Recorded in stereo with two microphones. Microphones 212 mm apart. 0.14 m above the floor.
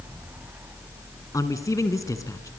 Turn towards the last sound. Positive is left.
turn(degrees=15)  # may be behind; listen again after turning